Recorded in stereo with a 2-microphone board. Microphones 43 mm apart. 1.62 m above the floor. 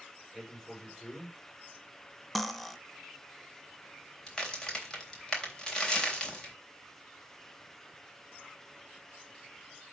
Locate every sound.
0.3 s a man speaking: 5° left (ahead or behind), 6.5 m
2.4 s cutlery clinking: 5° left (ahead or behind), 0.7 m
4.3 s a crack: 15° left (ahead or behind), 3.5 m